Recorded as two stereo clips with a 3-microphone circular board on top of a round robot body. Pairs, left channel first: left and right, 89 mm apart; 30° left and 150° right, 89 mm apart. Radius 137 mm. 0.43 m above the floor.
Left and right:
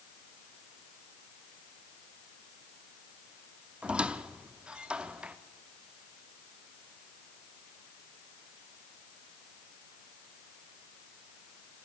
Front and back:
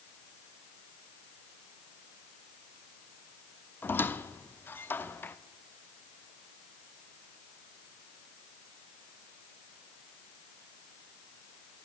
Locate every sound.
3.8 s a squeak: 20° right, 0.9 m